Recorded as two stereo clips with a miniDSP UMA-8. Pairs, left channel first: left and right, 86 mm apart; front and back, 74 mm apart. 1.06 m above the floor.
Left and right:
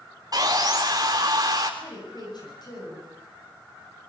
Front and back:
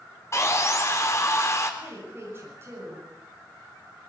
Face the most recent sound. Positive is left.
turn(degrees=125)